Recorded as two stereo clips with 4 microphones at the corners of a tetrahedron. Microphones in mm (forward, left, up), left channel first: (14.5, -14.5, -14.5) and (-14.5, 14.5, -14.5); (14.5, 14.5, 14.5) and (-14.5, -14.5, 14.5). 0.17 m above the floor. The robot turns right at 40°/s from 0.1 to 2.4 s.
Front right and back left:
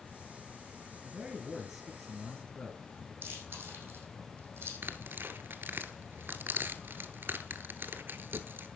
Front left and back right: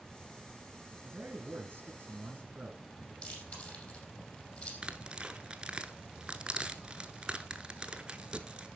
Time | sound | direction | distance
1.0 | a man speaking | 160° right | 2.5 m
3.2 | chewing | 100° left | 4.5 m
4.8 | tearing paper | 160° left | 0.8 m